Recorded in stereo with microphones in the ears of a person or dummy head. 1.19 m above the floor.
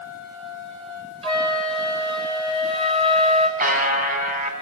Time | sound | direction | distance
1.2 | a flute | 30° right (ahead or behind) | 3.5 m
3.6 | a buzzer | 45° right (ahead or behind) | 4 m